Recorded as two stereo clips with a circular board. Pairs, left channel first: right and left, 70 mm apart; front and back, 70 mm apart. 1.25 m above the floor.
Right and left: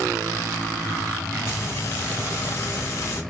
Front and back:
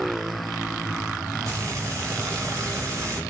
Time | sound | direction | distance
1.4 | frying | 140° right | 3 m